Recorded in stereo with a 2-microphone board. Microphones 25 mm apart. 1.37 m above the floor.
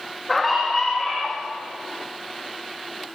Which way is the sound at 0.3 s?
10° left (ahead or behind).